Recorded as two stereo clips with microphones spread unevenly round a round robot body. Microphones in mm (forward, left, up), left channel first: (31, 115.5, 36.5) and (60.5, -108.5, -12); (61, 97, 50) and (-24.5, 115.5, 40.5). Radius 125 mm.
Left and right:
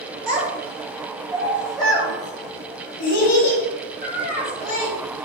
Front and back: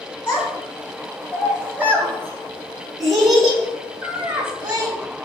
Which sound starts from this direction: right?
A child speaking, at 0.3 s.